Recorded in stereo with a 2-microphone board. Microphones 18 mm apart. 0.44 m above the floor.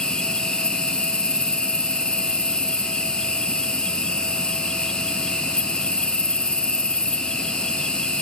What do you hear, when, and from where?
0.0 s an insect: 65° left (ahead or behind), 1.9 m